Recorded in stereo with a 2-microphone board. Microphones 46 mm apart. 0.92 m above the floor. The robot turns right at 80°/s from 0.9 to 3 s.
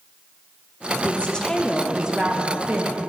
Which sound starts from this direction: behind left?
A woman speaking, at 1.0 s.